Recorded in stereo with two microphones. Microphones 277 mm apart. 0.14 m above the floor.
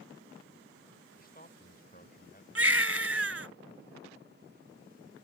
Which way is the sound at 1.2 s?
30° left (ahead or behind).